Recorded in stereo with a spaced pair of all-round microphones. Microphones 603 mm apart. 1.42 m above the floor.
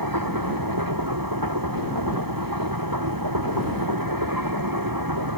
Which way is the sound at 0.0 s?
35° right (ahead or behind).